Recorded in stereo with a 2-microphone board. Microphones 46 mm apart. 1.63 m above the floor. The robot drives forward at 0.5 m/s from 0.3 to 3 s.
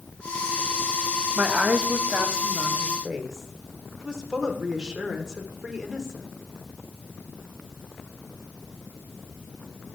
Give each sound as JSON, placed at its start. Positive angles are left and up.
{"t": 1.4, "sound": "a woman speaking", "side_deg": -25, "distance_m": 0.8}